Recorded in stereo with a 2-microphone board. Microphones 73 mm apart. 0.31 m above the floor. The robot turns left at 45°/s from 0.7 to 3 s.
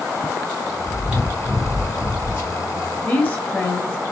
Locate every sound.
0.9 s chewing: 145° right, 2.5 m; by 2.5 s 140° left, 2.5 m
3.0 s a woman speaking: 25° left (ahead or behind), 1.0 m